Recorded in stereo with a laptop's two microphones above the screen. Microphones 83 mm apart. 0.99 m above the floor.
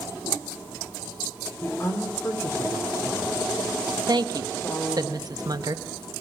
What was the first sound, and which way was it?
A woman speaking, 30° left (ahead or behind).